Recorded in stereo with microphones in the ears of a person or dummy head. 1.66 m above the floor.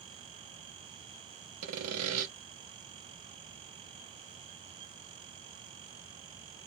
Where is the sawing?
80° right, 0.6 m.